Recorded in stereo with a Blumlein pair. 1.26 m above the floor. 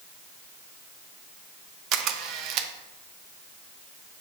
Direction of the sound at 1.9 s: 35° right.